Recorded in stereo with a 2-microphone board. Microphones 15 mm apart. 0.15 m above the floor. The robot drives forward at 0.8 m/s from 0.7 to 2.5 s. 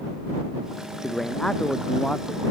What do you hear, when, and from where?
1.0 s a man speaking: 40° left (ahead or behind); by 2.5 s 45° left (ahead or behind)